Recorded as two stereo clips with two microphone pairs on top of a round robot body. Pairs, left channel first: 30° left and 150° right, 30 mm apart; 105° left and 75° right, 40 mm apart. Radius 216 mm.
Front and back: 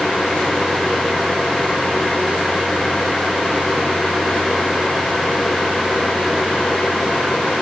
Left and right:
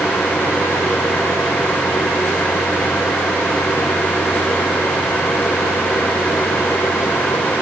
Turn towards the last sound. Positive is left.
No sound to turn to.